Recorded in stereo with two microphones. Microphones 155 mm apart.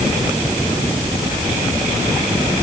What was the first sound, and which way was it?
Only background noise.